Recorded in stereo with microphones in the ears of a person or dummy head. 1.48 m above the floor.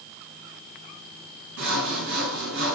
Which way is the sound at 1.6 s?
70° right (ahead or behind).